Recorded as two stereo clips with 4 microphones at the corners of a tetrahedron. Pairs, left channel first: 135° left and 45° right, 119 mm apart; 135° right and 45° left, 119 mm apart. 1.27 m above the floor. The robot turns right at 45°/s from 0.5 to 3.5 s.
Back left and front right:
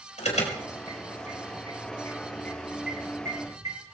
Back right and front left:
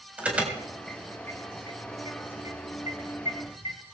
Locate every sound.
0.2 s an alarm: 125° left, 4 m; by 3.8 s 100° right, 4 m